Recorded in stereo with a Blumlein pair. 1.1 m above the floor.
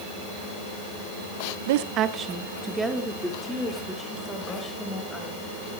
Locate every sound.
1.7 s a woman speaking: 55° right, 0.9 m; by 5.4 s 10° left, 5.5 m